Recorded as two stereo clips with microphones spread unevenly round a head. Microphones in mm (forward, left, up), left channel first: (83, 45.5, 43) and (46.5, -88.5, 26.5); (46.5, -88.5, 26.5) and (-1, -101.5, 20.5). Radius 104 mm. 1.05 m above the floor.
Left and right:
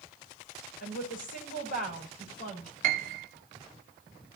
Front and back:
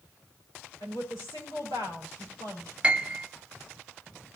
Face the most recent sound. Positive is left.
turn(degrees=-95)